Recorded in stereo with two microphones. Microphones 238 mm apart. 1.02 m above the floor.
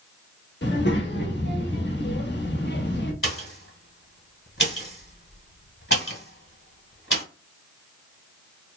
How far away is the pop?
About 1.2 m.